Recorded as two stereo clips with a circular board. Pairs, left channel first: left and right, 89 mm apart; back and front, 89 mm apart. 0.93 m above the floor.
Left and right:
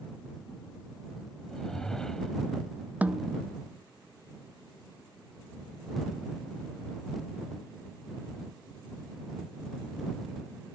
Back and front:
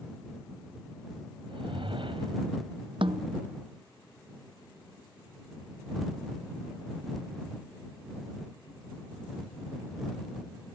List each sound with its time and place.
1.5 s a whoosh: 5° left
3.0 s a snare drum: 15° right